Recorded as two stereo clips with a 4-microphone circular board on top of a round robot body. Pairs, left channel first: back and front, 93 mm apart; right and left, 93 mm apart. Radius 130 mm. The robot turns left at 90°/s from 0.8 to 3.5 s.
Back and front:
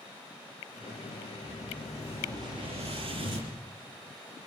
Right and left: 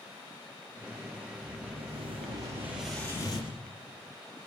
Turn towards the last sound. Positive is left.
turn(degrees=-55)